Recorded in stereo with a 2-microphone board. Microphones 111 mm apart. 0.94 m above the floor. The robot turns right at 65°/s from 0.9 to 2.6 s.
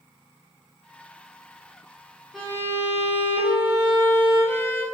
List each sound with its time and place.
2.3 s a violin: centre (ahead or behind), 1.0 m; by 4.8 s 20° left (ahead or behind), 1.0 m